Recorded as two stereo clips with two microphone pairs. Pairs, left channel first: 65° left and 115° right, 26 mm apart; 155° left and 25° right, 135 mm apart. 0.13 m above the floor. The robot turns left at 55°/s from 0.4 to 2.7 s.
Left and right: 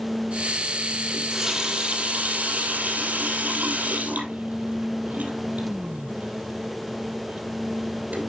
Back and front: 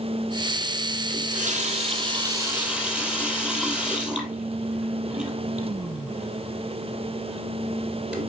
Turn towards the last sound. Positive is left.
turn(degrees=-110)